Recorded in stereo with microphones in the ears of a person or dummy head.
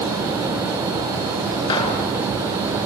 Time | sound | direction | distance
1.7 | a gunshot | 30° left (ahead or behind) | 3.5 m